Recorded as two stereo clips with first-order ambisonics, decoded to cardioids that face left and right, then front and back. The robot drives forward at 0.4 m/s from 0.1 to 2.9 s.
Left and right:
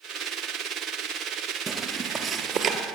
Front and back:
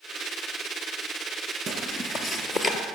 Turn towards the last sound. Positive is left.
turn(degrees=-95)